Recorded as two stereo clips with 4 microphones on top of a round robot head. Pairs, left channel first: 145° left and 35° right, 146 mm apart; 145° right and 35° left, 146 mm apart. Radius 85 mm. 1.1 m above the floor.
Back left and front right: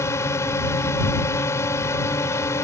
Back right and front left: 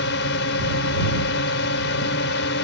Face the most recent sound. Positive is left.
turn(degrees=-140)